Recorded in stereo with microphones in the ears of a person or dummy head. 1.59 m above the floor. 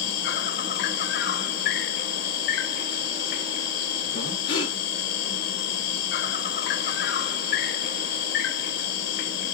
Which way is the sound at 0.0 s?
60° left (ahead or behind).